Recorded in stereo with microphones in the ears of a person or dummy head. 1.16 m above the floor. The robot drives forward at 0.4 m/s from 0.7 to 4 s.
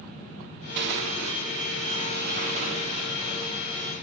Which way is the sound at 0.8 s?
60° right (ahead or behind).